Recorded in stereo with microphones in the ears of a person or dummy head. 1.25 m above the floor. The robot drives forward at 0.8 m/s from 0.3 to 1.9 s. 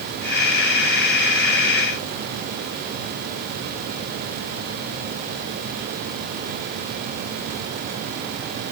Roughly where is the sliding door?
No sliding door in this recording.